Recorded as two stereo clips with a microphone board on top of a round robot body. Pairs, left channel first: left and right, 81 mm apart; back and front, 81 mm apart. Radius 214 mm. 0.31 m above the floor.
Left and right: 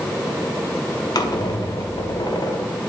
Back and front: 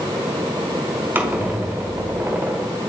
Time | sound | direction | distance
1.1 | a squeak | 65° left | 1.0 m